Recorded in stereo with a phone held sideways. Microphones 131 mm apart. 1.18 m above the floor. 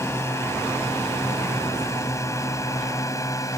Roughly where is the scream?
I don't hear a scream.